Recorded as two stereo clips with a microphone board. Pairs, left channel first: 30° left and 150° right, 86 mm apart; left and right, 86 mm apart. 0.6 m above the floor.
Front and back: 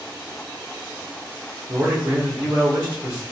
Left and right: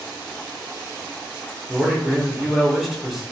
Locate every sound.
1.7 s a man speaking: 175° right, 0.9 m